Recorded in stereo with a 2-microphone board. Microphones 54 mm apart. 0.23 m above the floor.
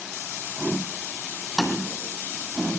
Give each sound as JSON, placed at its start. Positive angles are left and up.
{"t": 1.6, "sound": "tapping", "side_deg": 5, "distance_m": 2.0}